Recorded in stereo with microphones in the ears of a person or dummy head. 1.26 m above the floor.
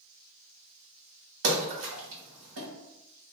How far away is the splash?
About 1.5 m.